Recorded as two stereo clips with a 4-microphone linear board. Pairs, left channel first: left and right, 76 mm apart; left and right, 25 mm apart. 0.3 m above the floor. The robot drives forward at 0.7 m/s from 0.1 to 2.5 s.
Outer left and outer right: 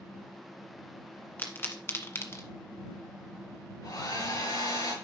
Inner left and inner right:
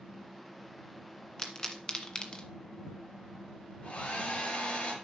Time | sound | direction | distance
1.4 | a pop | 25° left (ahead or behind) | 1.8 m
3.8 | a hair dryer | 55° left (ahead or behind) | 5.5 m